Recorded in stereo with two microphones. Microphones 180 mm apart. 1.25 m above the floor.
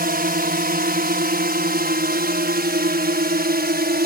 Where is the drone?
60° right (ahead or behind); by 4.1 s 65° right (ahead or behind).